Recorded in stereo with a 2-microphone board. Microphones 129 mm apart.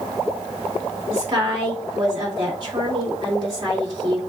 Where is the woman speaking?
40° right (ahead or behind), 2 m.